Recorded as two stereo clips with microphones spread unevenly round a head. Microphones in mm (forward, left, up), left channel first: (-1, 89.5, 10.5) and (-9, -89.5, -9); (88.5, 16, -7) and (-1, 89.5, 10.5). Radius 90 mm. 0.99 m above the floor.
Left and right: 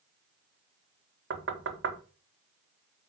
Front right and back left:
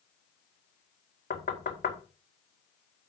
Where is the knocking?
65° right, 1.7 m.